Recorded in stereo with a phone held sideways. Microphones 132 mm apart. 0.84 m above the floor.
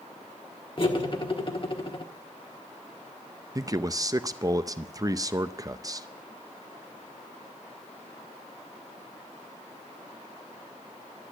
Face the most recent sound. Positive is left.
turn(degrees=-25)  # may be behind; listen again after turning